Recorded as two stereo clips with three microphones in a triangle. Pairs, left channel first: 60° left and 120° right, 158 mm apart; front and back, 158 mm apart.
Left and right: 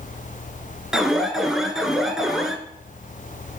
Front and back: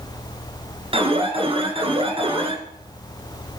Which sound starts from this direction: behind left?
An alarm, at 0.9 s.